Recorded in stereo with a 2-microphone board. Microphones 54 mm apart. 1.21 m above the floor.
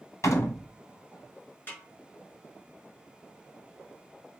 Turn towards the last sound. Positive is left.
turn(degrees=35)  # may be behind; listen again after turning